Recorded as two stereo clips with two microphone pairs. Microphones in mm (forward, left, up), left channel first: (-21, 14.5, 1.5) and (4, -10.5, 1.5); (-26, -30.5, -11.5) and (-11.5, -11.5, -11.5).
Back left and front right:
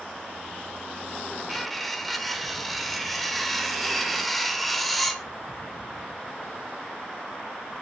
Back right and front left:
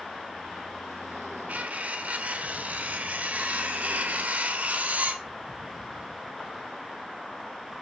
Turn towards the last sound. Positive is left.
turn(degrees=45)